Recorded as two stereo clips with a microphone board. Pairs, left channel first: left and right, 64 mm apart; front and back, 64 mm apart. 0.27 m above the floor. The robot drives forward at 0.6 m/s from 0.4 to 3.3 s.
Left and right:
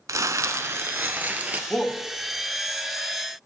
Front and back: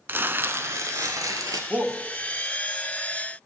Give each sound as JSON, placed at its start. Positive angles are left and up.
{"t": 0.1, "sound": "crumpling", "azimuth_deg": -125, "distance_m": 0.5}
{"t": 1.7, "sound": "a shout", "azimuth_deg": 160, "distance_m": 1.1}